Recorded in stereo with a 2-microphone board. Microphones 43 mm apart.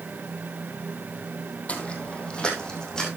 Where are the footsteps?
30° left (ahead or behind), 2.5 m; by 3.1 s 15° left (ahead or behind), 4.5 m.